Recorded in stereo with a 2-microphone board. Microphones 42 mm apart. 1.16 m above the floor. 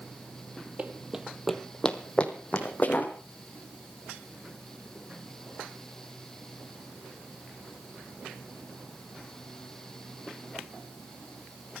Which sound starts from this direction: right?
Running footsteps, at 0.8 s.